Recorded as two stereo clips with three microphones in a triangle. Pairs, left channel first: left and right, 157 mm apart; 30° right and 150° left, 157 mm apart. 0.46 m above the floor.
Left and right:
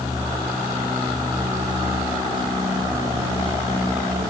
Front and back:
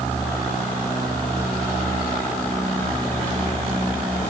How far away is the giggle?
I don't hear a giggle.